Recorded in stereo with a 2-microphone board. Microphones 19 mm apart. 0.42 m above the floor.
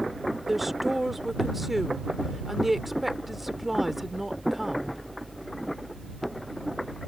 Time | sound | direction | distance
0.5 | a woman speaking | 5° right (ahead or behind) | ?